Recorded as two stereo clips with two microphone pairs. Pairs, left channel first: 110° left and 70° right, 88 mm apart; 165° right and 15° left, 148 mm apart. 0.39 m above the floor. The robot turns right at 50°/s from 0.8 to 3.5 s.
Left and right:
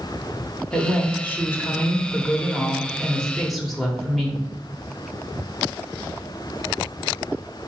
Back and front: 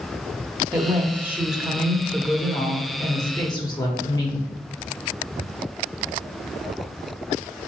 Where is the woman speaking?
60° left, 0.9 m; by 4.5 s 165° right, 0.9 m.